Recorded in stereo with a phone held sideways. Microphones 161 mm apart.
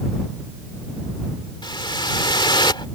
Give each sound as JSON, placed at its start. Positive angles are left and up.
{"t": 1.6, "sound": "a whoosh", "side_deg": 25}